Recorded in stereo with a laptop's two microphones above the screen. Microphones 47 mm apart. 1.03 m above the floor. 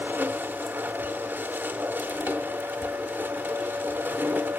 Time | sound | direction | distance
0.0 | a machine running | 40° right (ahead or behind) | 0.8 m